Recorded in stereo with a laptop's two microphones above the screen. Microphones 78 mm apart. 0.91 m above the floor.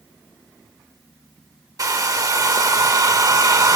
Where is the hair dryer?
45° right (ahead or behind), 0.7 m.